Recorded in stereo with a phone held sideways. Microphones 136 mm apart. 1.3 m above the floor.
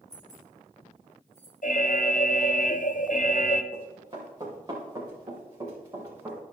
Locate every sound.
0.1 s keys jangling: 60° right (ahead or behind), 3.5 m; by 1.5 s 40° right (ahead or behind), 3 m
1.6 s an alarm: 65° left (ahead or behind), 0.6 m
3.7 s running footsteps: 35° right (ahead or behind), 4.5 m; by 6.4 s 20° right (ahead or behind), 6 m